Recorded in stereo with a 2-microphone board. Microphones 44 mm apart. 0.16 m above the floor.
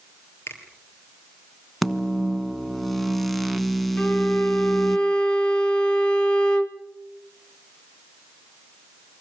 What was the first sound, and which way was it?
A finger snap, 65° left (ahead or behind).